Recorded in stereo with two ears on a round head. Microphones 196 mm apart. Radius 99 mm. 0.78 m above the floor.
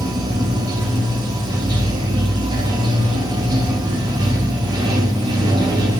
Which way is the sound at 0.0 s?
20° right (ahead or behind).